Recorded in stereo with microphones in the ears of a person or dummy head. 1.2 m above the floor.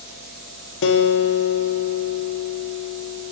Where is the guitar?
60° left (ahead or behind), 0.7 m.